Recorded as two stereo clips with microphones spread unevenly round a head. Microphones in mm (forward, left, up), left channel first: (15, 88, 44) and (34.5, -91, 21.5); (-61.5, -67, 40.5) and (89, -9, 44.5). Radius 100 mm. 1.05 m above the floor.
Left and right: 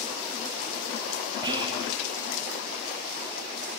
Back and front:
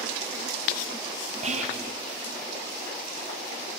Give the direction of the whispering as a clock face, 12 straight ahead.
1 o'clock.